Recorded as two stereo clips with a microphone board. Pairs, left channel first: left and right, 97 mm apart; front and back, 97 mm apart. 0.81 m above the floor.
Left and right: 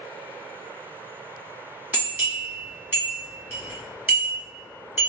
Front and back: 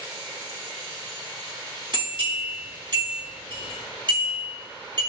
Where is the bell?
155° right, 1.3 m.